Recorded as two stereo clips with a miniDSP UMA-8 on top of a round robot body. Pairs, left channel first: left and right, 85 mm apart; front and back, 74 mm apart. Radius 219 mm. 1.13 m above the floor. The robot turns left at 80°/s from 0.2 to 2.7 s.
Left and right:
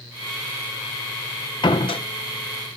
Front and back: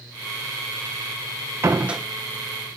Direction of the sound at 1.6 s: 125° left.